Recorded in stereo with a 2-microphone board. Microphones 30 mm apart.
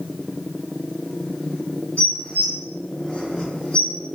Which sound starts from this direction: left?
Dishes clattering, at 2.0 s.